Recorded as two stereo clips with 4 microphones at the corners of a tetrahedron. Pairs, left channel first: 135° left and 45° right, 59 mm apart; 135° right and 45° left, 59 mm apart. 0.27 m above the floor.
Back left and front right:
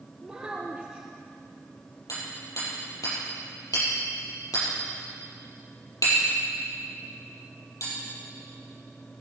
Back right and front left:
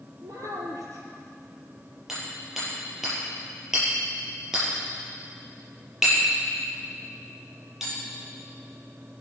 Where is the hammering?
130° left, 6.5 m.